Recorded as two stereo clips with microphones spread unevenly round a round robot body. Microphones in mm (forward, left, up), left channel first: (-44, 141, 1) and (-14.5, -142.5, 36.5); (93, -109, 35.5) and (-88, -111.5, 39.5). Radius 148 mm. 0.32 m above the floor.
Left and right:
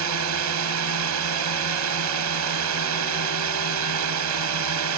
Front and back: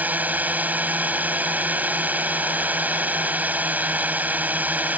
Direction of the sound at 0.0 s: 100° right.